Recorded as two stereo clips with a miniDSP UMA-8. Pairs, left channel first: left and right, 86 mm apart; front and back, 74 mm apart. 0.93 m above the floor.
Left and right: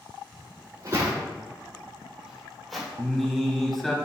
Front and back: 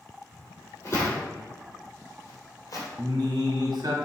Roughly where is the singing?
Behind.